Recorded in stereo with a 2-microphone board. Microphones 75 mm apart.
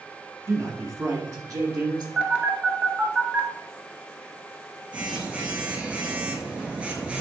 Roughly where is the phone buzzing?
Centre.